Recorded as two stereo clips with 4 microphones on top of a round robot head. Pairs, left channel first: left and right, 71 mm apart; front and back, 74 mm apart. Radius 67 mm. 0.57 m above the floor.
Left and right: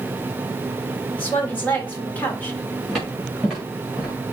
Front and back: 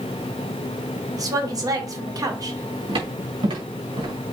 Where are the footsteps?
Straight behind, 5.5 m; by 4.3 s 170° right, 5 m.